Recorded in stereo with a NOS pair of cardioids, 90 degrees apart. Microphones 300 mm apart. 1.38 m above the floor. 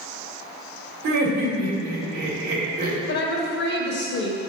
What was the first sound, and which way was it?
Laughter, 70° right.